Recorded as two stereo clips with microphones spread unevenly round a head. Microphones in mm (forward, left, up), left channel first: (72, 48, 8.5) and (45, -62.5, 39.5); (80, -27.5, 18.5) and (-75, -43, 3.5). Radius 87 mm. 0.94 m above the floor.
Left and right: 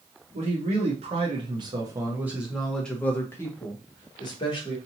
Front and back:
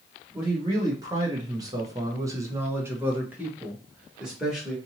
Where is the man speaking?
115° right, 1.2 m; by 4.8 s 100° left, 1.6 m.